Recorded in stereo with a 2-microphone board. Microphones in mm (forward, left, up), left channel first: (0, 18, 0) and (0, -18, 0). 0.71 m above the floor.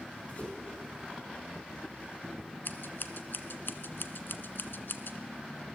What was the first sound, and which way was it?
A whoosh, 35° left (ahead or behind).